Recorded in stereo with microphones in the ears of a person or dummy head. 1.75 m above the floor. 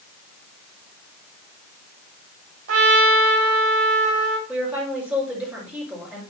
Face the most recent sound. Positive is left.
turn(degrees=-10)  # may be behind; listen again after turning